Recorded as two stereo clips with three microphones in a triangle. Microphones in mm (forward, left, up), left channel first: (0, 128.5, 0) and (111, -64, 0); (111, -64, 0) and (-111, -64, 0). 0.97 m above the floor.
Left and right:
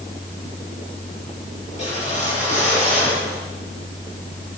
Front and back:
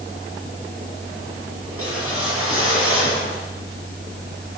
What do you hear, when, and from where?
1.7 s a whoosh: straight behind, 5 m